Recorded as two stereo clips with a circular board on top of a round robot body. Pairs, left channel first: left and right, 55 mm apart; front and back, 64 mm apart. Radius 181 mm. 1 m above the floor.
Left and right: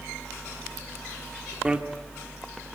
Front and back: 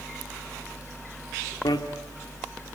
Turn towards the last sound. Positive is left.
turn(degrees=-15)